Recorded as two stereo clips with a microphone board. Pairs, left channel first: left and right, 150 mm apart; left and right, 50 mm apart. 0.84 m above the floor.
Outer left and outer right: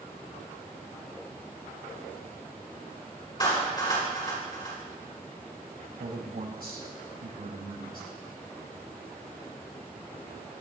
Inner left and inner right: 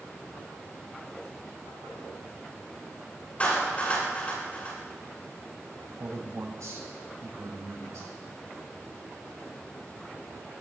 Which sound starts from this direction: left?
A clap, at 3.4 s.